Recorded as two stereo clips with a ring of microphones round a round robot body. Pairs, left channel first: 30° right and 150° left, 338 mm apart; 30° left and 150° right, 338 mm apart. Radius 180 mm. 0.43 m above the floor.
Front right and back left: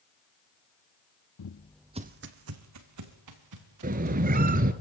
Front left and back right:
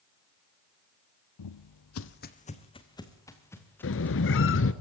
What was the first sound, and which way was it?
Footsteps, 5° left.